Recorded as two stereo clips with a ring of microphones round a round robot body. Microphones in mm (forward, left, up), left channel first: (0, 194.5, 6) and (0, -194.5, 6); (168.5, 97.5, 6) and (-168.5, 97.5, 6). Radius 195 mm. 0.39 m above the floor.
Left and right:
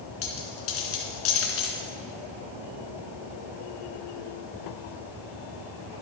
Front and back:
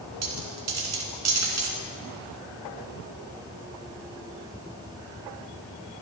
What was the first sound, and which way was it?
A dropped coin, 150° left.